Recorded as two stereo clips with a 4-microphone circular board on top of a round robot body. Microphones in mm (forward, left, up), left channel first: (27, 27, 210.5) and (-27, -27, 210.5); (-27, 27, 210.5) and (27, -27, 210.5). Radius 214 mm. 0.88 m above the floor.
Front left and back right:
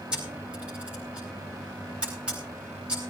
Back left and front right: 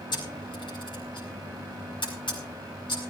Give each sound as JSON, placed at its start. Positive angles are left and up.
{"t": 0.1, "sound": "a camera shutter", "azimuth_deg": 150, "distance_m": 9.0}